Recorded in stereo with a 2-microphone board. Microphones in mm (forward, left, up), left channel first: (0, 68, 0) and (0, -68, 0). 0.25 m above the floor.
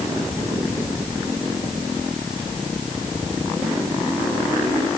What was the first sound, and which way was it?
Only background noise.